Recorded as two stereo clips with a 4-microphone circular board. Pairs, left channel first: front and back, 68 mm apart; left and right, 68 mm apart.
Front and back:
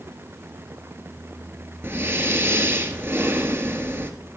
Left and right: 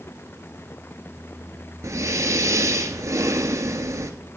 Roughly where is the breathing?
Behind right.